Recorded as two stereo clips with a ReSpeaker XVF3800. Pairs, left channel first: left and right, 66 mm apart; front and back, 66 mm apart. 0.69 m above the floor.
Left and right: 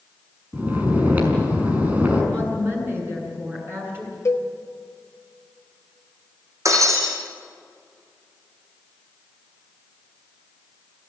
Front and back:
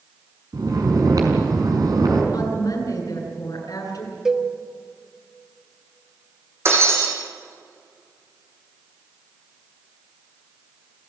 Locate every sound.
0.5 s snoring: 155° right, 5 m
2.3 s a woman speaking: 30° right, 9 m
4.2 s a cowbell: 100° left, 1.3 m
6.7 s breaking glass: 130° right, 6.5 m